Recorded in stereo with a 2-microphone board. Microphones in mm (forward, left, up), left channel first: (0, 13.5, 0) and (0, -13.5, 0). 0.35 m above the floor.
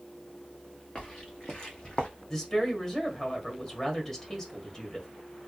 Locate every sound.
0.9 s footsteps: 20° left (ahead or behind), 2.0 m; by 2.1 s 35° left (ahead or behind), 1.0 m
2.3 s a woman speaking: 10° left (ahead or behind), 1.5 m